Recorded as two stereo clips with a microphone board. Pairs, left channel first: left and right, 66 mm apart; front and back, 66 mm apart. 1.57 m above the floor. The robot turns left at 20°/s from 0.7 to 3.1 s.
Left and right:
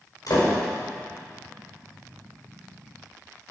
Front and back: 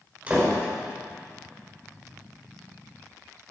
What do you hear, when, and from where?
0.3 s a door slam: 110° left, 5 m